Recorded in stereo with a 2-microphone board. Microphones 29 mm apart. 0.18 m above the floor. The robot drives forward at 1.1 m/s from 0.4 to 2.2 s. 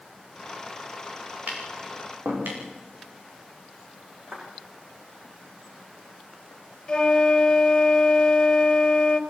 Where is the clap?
50° right (ahead or behind), 8 m.